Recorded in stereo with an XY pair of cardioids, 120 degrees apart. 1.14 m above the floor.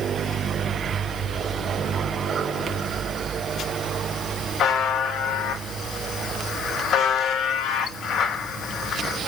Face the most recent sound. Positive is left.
turn(degrees=60)